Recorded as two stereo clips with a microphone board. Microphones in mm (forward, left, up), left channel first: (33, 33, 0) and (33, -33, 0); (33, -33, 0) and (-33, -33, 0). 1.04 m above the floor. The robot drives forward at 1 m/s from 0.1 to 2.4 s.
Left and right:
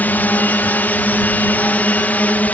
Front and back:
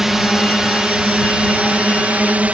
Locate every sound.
0.0 s a drone: 105° left; by 2.5 s 130° left